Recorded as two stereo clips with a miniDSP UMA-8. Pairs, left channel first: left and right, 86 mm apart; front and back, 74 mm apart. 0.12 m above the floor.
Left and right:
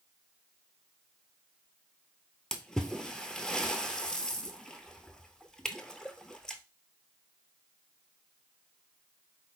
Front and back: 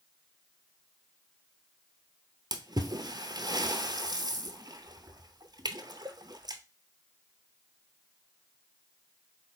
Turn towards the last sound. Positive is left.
turn(degrees=170)